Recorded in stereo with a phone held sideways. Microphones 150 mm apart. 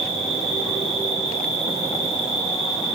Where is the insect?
50° left (ahead or behind), 2.5 m.